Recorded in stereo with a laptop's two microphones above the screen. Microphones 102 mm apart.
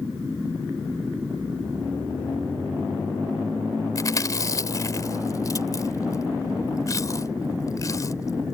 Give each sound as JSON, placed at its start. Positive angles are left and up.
{"t": 4.0, "sound": "chewing", "side_deg": 35}